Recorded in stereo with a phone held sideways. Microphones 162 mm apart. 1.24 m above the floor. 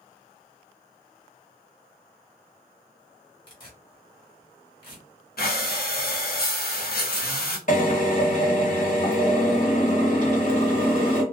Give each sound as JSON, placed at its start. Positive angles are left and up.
{"t": 3.5, "sound": "tearing paper", "side_deg": 30, "distance_m": 1.4}
{"t": 5.4, "sound": "breathing", "side_deg": 70, "distance_m": 0.6}
{"t": 7.7, "sound": "a drill", "side_deg": 50, "distance_m": 1.3}